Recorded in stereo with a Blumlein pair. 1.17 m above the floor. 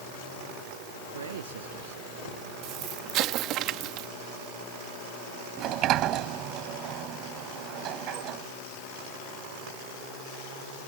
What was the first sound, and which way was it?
A man speaking, 65° right.